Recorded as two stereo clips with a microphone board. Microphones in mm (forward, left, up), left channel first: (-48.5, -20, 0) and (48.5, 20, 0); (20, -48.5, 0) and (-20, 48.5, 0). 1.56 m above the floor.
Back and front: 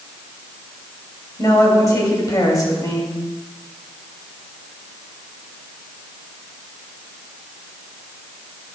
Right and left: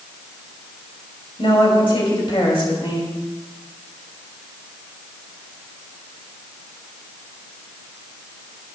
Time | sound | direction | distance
1.4 | a woman speaking | 105° right | 2.5 m